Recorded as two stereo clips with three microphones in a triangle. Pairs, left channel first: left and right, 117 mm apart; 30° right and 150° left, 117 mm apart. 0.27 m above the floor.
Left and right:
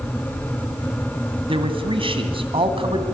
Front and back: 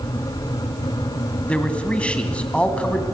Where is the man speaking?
110° right, 2.5 m.